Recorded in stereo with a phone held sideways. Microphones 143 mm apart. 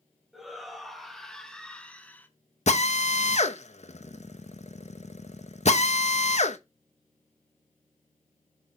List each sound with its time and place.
0.3 s a shout: centre (ahead or behind), 3 m; by 2.3 s 15° left (ahead or behind), 1.7 m
2.7 s a drill: 55° left (ahead or behind), 1.1 m